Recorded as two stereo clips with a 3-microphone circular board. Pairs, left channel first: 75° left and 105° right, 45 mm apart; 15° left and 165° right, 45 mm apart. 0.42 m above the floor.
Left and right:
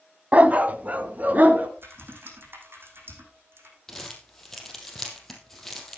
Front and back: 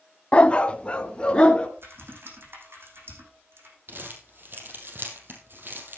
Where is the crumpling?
160° left, 4 m.